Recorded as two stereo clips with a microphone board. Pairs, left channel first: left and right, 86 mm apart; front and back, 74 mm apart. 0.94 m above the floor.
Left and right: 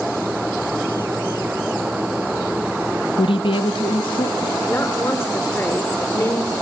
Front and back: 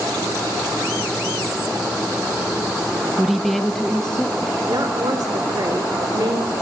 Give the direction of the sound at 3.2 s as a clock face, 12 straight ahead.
9 o'clock.